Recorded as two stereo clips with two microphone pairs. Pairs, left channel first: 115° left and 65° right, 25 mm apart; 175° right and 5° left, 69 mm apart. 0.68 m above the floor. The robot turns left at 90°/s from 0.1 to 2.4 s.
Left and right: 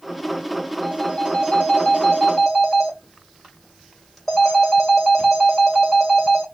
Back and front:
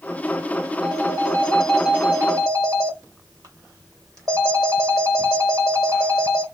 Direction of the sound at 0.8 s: 175° left.